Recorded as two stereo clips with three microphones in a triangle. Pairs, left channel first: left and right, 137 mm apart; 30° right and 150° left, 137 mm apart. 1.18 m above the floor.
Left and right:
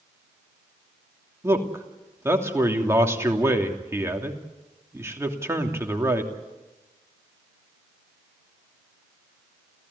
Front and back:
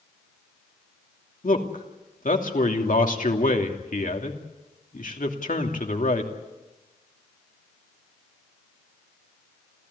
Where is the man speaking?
20° right, 3 m.